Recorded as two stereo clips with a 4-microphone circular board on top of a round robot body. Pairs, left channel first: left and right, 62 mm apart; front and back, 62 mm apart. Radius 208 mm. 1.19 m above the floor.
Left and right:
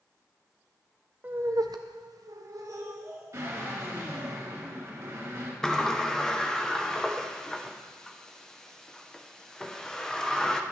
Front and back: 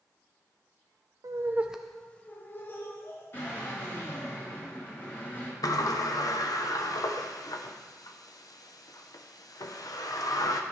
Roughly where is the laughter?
Behind right.